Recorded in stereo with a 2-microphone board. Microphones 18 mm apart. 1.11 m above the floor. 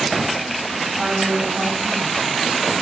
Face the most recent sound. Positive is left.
turn(degrees=-35)  # may be behind; listen again after turning